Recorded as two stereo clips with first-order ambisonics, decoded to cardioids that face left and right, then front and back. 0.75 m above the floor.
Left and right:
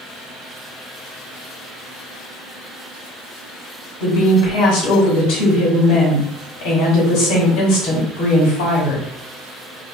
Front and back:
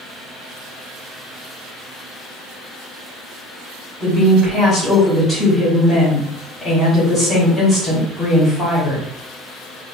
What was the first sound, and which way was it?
A woman speaking, 75° left.